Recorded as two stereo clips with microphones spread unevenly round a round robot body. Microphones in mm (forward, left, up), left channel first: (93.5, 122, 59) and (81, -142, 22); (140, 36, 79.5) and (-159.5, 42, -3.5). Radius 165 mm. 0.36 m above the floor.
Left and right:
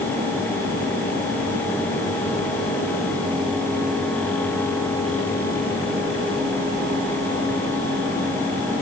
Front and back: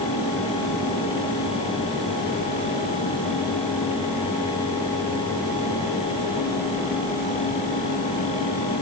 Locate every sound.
Only background noise.